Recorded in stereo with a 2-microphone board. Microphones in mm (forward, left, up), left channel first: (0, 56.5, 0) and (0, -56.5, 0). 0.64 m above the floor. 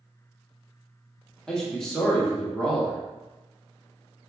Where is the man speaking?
5° left (ahead or behind), 1.1 m.